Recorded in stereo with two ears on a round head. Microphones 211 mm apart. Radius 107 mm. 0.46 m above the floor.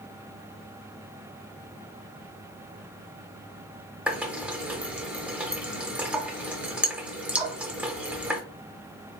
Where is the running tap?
5° right (ahead or behind), 0.7 m.